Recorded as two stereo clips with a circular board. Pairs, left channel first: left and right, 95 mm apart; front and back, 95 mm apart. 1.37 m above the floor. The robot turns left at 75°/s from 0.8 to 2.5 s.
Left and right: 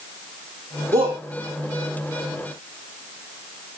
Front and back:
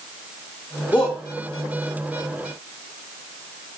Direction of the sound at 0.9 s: 75° right.